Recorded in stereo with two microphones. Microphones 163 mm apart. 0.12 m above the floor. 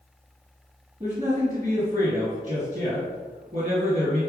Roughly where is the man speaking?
Right.